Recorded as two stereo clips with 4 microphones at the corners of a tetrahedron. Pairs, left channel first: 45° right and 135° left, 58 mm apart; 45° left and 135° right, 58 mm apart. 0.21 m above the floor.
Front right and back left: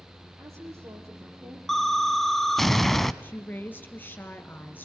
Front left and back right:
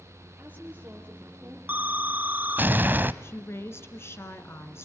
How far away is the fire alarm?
I don't hear a fire alarm.